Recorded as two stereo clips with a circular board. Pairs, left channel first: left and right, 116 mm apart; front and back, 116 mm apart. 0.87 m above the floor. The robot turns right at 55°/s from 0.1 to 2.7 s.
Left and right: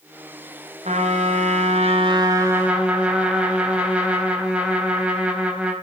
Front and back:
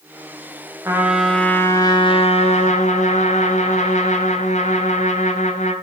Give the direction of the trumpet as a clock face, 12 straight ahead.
4 o'clock.